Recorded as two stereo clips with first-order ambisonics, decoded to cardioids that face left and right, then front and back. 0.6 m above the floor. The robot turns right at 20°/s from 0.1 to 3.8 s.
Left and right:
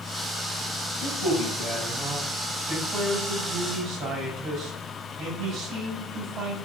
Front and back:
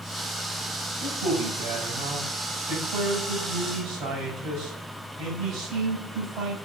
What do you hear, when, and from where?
1.0 s a man speaking: 160° left, 4 m; by 6.6 s 145° right, 4 m